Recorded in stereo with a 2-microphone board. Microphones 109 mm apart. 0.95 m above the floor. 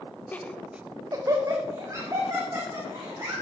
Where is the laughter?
15° left (ahead or behind), 0.9 m; by 3.4 s 30° right (ahead or behind), 4 m.